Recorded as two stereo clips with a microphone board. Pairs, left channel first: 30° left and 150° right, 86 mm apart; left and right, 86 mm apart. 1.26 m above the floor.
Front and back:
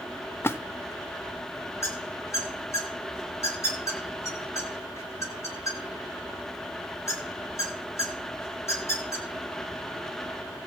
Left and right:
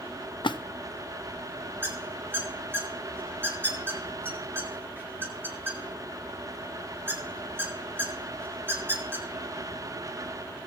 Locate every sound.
0.4 s a splash: 90° left, 0.6 m
1.8 s a squeak: 25° right, 2 m